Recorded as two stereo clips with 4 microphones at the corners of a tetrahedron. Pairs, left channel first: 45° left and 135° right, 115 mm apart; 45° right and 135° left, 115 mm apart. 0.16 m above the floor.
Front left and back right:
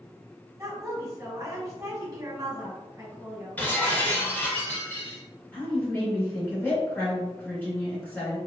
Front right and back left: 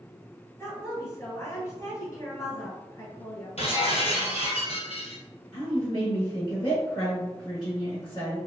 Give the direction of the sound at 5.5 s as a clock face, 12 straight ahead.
1 o'clock.